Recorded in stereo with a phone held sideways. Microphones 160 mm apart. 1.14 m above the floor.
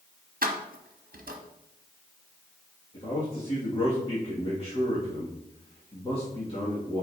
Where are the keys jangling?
65° right (ahead or behind), 1.0 m.